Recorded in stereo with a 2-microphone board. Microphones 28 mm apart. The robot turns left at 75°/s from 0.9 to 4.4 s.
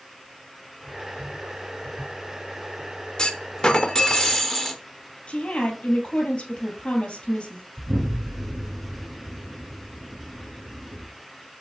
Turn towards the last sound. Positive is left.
turn(degrees=-85)